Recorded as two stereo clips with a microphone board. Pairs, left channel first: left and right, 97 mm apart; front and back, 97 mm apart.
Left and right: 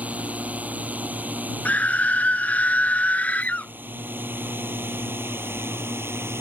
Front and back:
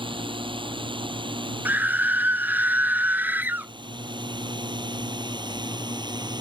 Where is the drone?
165° right; by 6.4 s 150° right.